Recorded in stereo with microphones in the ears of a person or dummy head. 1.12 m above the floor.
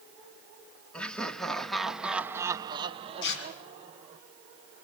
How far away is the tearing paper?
About 4 m.